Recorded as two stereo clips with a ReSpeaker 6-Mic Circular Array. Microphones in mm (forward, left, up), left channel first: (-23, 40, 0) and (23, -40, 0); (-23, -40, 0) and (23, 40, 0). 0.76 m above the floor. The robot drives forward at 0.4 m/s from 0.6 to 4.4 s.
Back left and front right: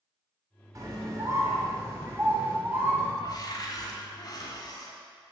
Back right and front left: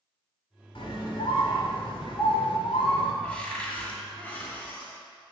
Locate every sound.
0.8 s a scream: 110° right, 2.5 m; by 3.1 s 125° right, 3 m
3.2 s a cupboard door: 160° left, 1.7 m; by 5.0 s 165° left, 2 m